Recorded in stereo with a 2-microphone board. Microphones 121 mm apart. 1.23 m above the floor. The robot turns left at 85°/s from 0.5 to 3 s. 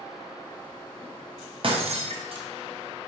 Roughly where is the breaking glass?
Right.